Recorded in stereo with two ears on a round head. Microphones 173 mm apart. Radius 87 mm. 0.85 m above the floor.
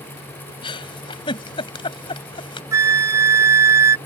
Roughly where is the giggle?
Left.